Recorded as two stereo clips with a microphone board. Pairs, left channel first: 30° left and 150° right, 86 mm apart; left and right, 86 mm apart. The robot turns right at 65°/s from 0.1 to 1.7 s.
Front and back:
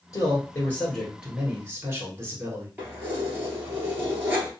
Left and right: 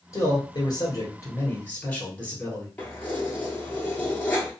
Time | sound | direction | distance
0.1 | a man speaking | 55° left | 1.7 m
2.8 | keys jangling | 150° left | 1.3 m